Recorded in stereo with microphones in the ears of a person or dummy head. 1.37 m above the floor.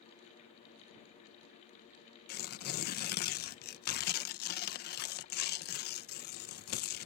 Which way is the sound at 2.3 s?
55° left (ahead or behind).